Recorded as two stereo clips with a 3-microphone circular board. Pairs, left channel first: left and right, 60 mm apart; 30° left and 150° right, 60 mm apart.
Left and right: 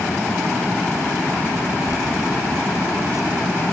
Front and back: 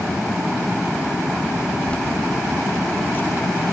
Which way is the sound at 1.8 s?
100° left.